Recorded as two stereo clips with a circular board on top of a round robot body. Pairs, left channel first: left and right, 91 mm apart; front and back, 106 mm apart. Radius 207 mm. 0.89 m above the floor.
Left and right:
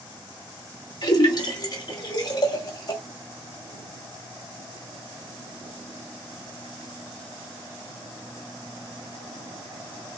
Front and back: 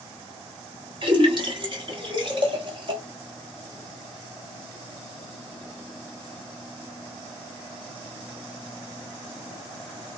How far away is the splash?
About 1.0 m.